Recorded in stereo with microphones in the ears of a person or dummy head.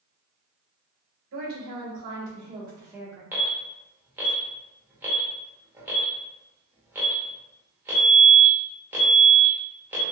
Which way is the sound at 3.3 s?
10° right (ahead or behind).